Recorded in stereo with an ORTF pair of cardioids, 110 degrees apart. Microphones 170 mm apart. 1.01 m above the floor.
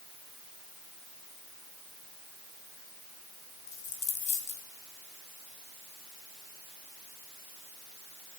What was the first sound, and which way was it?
A dropped coin, 45° left.